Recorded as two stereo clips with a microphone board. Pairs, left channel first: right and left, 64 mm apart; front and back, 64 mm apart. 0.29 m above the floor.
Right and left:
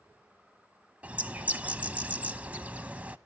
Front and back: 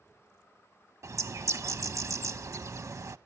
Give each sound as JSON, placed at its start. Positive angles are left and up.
{"t": 1.0, "sound": "a bird", "azimuth_deg": 155, "distance_m": 0.7}